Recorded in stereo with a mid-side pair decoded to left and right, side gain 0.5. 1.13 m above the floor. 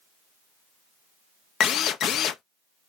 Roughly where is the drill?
Ahead left.